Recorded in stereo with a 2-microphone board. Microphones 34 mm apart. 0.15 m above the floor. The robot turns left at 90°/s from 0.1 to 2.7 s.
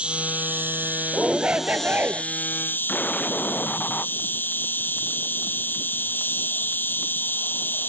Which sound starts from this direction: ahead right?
An insect, at 0.0 s.